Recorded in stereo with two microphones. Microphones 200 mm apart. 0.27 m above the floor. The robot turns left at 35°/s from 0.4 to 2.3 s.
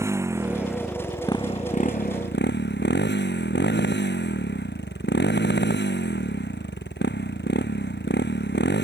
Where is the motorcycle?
170° right; by 8.8 s 125° left.